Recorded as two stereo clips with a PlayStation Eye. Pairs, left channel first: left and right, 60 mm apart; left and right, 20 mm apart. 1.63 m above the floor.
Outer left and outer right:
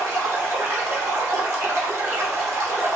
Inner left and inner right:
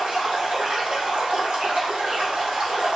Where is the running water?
45° right (ahead or behind), 1.3 m.